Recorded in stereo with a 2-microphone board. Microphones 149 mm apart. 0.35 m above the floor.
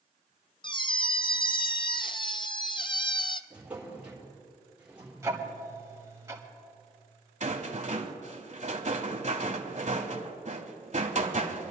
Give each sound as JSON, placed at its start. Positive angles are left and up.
{"t": 0.6, "sound": "a squeak", "side_deg": 35, "distance_m": 0.5}
{"t": 3.5, "sound": "a drawer", "side_deg": -10, "distance_m": 4.0}
{"t": 5.2, "sound": "ticking", "side_deg": -20, "distance_m": 1.8}
{"t": 7.4, "sound": "a rattle", "side_deg": -50, "distance_m": 1.2}